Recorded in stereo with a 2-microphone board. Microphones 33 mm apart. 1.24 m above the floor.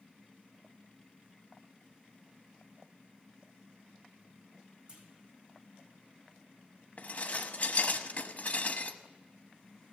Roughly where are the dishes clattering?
Left.